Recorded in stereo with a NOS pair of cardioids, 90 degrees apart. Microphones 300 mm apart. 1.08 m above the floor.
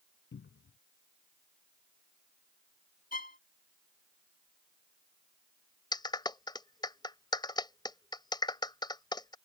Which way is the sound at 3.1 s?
30° left.